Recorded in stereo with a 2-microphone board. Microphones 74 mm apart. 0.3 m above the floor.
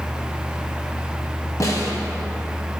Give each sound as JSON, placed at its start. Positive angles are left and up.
{"t": 1.6, "sound": "a snare drum", "side_deg": 50, "distance_m": 1.2}